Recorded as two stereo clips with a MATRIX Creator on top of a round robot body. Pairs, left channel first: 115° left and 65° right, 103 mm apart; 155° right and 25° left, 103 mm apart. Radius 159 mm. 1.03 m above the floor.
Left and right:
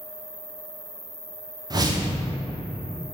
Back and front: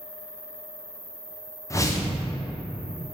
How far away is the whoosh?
About 0.6 m.